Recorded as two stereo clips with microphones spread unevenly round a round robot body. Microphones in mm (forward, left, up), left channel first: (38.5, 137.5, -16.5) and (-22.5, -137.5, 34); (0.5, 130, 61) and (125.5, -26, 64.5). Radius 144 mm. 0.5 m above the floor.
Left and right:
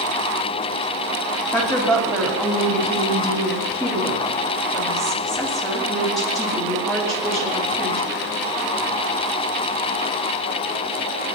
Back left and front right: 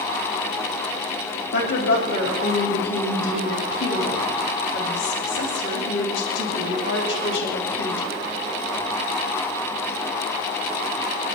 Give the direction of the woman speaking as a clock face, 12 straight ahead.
7 o'clock.